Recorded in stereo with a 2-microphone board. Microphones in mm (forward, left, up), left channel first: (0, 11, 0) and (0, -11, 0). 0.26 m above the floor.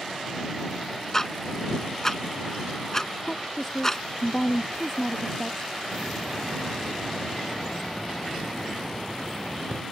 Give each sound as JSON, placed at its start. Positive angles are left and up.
{"t": 1.1, "sound": "ticking", "side_deg": 20}
{"t": 3.2, "sound": "a woman speaking", "side_deg": 20}
{"t": 5.9, "sound": "a hiss", "side_deg": 25}